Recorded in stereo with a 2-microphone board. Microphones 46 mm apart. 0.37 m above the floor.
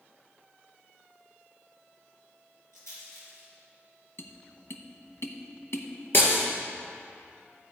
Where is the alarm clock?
I don't hear an alarm clock.